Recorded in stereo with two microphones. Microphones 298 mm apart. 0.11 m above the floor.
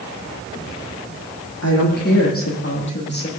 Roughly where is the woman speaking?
Left.